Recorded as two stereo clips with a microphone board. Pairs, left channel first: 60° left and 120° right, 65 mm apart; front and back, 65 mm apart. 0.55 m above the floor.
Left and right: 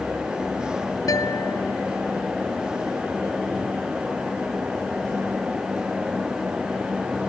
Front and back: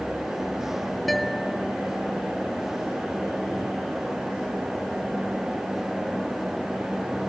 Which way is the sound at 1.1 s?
90° left.